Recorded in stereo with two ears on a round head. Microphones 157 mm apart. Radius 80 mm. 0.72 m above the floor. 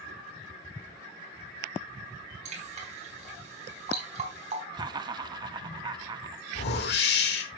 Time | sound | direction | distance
2.5 | dripping | 40° right (ahead or behind) | 4 m
4.7 | laughter | 25° right (ahead or behind) | 1.2 m
6.5 | a whoosh | 65° left (ahead or behind) | 1.7 m